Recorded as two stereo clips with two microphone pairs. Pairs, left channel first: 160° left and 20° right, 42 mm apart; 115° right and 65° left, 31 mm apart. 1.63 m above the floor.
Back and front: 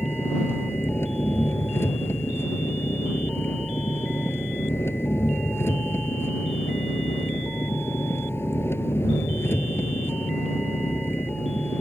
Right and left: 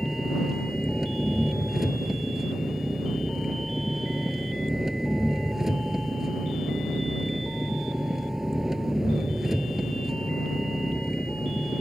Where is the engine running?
140° left.